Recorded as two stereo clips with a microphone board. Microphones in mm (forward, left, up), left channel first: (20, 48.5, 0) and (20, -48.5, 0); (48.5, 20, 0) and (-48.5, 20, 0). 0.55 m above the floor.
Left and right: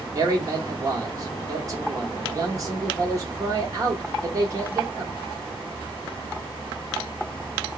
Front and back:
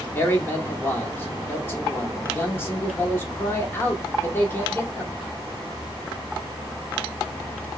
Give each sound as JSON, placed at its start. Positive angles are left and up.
{"t": 0.1, "sound": "a man speaking", "azimuth_deg": -55, "distance_m": 1.1}